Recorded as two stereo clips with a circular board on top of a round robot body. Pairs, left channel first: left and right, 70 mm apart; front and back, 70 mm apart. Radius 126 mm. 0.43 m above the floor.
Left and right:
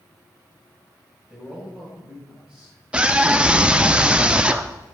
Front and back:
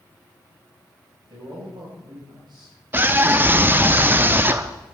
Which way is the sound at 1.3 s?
165° right.